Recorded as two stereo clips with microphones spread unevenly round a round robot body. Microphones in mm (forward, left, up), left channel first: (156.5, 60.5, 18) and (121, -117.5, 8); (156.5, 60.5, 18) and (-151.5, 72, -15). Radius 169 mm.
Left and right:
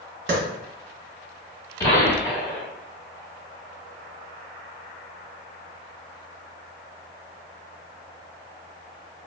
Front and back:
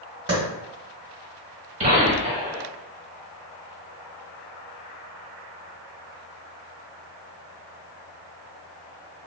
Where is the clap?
125° right, 1.5 m.